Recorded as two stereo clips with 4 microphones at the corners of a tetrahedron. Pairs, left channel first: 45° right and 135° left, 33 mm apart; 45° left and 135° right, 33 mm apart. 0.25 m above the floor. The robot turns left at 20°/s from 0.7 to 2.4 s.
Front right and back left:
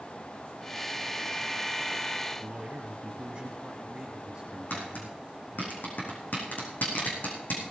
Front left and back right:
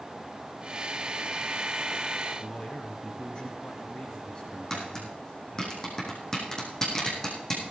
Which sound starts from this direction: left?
A man speaking, at 2.4 s.